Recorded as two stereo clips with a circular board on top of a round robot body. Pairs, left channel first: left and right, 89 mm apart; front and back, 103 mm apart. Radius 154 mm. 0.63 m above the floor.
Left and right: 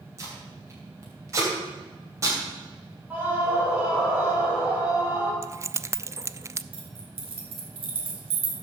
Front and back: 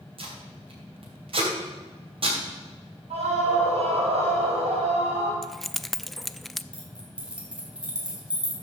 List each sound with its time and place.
0.2 s tape being pulled: 150° right, 3 m
3.1 s a scream: 165° right, 4 m
5.4 s keys jangling: 90° right, 0.5 m
6.7 s keys jangling: 100° right, 2.5 m